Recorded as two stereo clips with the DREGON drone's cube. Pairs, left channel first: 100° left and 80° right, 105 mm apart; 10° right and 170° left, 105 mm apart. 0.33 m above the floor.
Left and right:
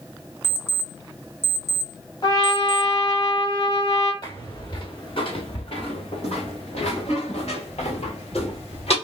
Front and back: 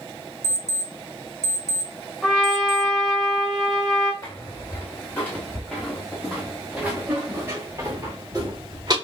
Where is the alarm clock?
145° left, 0.7 m.